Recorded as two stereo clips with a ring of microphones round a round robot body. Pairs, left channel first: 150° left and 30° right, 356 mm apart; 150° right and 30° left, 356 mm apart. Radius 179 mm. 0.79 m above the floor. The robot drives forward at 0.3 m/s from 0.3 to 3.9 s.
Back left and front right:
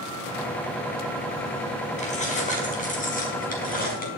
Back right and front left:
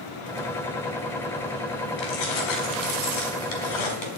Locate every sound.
2.0 s keys jangling: 140° right, 5 m; by 4.1 s 145° right, 5 m